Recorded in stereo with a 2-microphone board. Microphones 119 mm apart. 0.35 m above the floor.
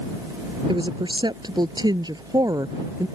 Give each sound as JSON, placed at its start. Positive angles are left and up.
{"t": 0.7, "sound": "a woman speaking", "side_deg": -40}